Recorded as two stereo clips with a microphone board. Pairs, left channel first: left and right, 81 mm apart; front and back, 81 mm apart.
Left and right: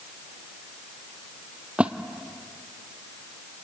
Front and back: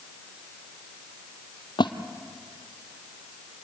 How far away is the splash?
About 1.0 m.